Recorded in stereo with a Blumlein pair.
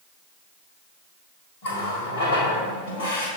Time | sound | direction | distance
1.6 | a running tap | 55° left | 1.8 m